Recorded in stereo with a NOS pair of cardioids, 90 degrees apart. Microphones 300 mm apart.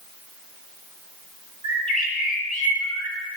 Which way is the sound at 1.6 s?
25° left.